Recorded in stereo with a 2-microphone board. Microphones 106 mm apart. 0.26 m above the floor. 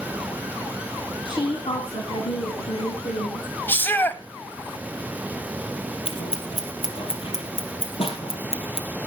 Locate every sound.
1.2 s a woman speaking: 50° left (ahead or behind), 2.5 m; by 3.5 s 70° left (ahead or behind), 4.5 m
3.7 s a shout: 20° left (ahead or behind), 1.2 m
6.0 s scissors: 70° left (ahead or behind), 2.5 m